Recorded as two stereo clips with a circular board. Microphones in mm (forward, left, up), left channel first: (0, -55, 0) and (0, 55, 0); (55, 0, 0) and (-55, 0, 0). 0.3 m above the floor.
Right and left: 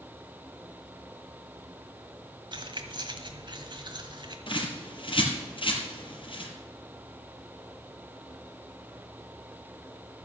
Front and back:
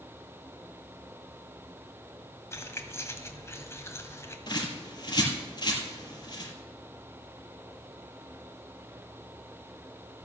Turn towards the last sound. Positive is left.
turn(degrees=-50)